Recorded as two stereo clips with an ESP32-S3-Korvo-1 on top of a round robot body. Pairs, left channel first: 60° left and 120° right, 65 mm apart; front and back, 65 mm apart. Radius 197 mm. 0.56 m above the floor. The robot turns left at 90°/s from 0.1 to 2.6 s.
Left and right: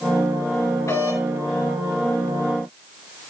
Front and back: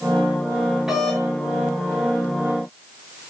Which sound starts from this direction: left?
A doorbell, at 0.9 s.